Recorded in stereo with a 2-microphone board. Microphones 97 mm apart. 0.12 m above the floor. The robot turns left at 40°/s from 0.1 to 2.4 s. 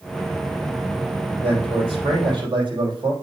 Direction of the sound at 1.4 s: 80° right.